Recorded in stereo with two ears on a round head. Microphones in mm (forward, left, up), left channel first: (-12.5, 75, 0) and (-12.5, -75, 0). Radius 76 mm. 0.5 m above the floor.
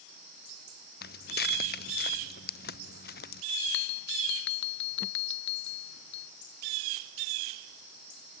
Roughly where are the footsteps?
Left.